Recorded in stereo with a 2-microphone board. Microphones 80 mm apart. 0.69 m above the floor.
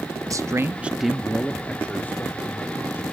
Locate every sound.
0.3 s a man speaking: 45° right (ahead or behind), 0.6 m; by 3.0 s 30° left (ahead or behind), 2 m